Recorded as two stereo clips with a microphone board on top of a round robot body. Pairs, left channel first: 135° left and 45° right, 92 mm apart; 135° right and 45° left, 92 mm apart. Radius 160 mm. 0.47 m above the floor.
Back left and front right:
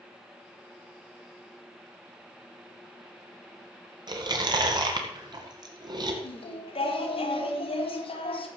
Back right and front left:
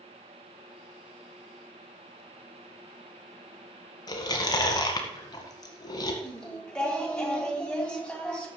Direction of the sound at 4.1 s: 90° right.